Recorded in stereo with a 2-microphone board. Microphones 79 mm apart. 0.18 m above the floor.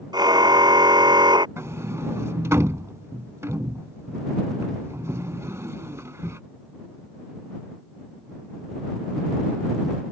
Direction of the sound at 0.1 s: 60° right (ahead or behind).